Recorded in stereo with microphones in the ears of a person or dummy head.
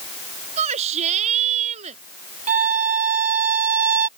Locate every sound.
0.6 s a shout: 35° right (ahead or behind)
2.5 s a violin: 45° right (ahead or behind)